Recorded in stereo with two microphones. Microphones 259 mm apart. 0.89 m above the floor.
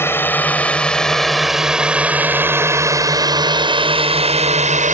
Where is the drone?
10° left (ahead or behind); by 4.9 s 30° right (ahead or behind).